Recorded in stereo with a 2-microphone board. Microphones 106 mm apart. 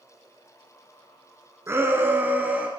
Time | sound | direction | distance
1.7 | a shout | 25° right (ahead or behind) | 1.7 m